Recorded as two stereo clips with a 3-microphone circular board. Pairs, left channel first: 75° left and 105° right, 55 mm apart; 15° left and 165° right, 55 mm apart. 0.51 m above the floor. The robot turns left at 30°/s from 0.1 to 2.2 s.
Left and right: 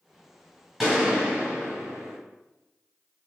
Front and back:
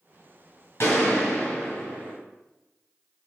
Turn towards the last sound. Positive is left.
turn(degrees=-65)